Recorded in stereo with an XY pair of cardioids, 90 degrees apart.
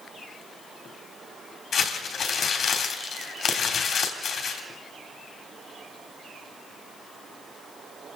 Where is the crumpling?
70° left, 3.5 m.